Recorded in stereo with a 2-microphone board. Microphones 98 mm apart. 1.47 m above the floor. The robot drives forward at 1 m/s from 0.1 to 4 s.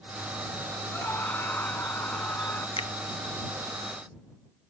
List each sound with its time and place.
0.9 s a scream: 20° left (ahead or behind)
2.8 s a finger snap: 70° left (ahead or behind); by 2.9 s 85° left